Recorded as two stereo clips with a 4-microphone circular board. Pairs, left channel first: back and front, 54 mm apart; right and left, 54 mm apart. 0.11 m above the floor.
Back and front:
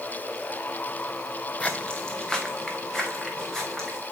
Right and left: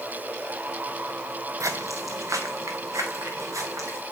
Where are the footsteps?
110° left, 0.9 m; by 4.0 s 95° left, 4 m.